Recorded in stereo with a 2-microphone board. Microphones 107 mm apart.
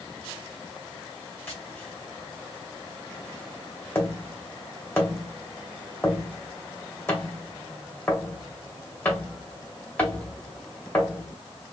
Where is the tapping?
20° left (ahead or behind), 2 m.